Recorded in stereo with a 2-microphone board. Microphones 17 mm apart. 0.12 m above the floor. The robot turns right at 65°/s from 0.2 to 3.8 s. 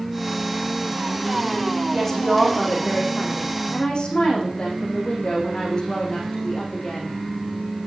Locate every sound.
1.9 s a woman speaking: 5° left, 5.5 m; by 7.2 s 130° left, 5.5 m